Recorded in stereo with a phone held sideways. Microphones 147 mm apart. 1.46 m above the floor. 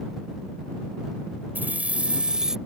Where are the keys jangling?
10° right (ahead or behind); by 2.6 s 5° right (ahead or behind).